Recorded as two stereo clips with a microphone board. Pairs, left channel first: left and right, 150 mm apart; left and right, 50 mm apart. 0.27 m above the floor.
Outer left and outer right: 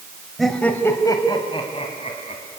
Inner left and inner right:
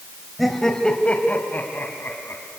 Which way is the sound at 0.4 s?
Centre (ahead or behind).